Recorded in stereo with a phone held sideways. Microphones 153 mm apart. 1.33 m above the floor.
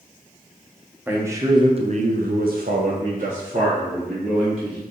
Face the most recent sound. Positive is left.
turn(degrees=-40)  # may be behind; listen again after turning